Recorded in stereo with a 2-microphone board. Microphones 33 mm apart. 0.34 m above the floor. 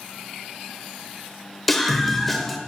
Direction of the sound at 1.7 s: 5° left (ahead or behind).